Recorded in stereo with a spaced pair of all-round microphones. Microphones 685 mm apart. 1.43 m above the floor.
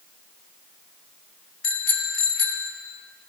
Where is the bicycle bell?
65° left (ahead or behind), 2 m.